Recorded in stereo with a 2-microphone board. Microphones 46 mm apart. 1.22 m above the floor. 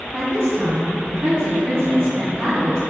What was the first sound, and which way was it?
A woman speaking, 60° right (ahead or behind).